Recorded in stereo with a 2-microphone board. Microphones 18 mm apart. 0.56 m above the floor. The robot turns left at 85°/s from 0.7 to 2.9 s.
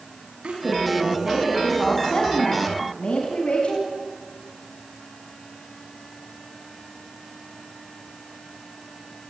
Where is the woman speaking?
95° right, 5 m; by 3.9 s 75° left, 5 m.